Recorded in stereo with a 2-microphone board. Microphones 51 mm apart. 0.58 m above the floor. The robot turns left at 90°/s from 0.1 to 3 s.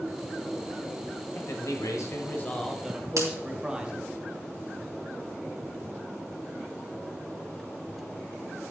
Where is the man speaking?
130° left, 2 m; by 4.1 s 20° right, 2 m.